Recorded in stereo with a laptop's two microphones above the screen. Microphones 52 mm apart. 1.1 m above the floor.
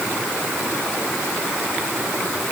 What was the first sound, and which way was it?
Only background noise.